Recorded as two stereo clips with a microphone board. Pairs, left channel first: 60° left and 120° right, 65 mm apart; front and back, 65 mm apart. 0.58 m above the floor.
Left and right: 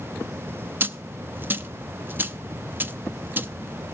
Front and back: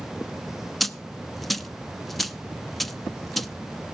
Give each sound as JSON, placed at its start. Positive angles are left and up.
{"t": 0.8, "sound": "a dropped coin", "azimuth_deg": -85, "distance_m": 0.6}